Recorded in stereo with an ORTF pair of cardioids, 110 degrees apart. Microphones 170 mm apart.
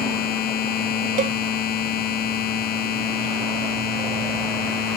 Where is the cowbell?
50° right.